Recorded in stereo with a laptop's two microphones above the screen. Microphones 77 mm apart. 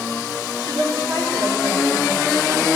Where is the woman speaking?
75° right (ahead or behind), 2.5 m; by 2.7 s 85° right, 5 m.